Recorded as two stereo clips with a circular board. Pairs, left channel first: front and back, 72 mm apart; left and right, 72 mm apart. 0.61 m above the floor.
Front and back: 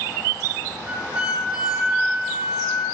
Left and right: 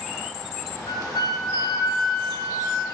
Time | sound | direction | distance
0.9 | a flute | 110° left | 0.6 m